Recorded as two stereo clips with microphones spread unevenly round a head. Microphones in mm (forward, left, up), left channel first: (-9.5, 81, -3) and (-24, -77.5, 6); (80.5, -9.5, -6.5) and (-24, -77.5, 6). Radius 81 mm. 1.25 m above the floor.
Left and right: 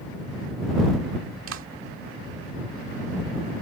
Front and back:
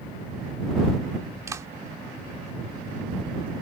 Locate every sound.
1.5 s a clap: 80° right